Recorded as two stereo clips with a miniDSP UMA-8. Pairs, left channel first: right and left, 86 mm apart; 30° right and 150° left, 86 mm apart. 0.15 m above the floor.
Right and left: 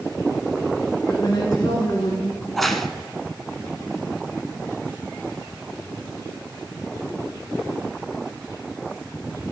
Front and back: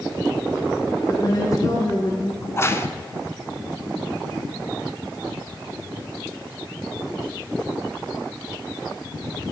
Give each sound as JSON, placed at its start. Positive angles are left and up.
{"t": 1.1, "sound": "a woman speaking", "azimuth_deg": -55, "distance_m": 1.7}
{"t": 2.4, "sound": "a crack", "azimuth_deg": -5, "distance_m": 0.8}